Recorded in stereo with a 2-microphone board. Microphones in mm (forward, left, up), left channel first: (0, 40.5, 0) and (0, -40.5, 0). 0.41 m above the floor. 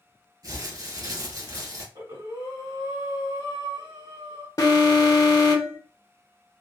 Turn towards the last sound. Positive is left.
turn(degrees=45)  # may be behind; listen again after turning